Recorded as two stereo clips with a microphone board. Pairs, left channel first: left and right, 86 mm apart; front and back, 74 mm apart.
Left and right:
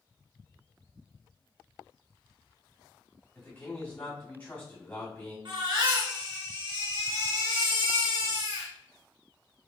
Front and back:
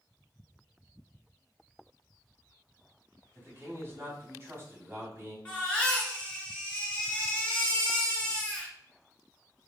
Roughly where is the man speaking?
Behind left.